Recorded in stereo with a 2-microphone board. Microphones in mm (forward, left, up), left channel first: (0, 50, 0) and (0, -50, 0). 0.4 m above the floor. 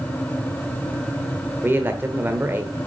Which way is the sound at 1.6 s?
20° right (ahead or behind).